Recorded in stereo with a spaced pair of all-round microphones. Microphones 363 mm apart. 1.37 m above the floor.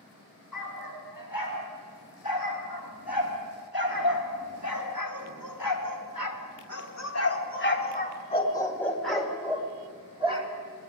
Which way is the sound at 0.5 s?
65° left (ahead or behind).